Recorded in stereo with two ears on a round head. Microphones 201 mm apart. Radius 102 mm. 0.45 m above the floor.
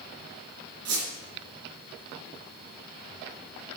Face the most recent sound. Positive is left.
turn(degrees=-75)  # may be behind; listen again after turning